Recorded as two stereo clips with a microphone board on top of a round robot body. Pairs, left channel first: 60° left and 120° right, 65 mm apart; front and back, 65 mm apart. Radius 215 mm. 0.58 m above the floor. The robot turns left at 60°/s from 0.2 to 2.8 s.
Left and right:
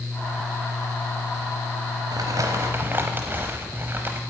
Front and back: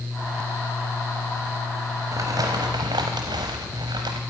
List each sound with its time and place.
2.1 s crumpling: 140° right, 0.7 m; by 4.2 s straight behind, 0.7 m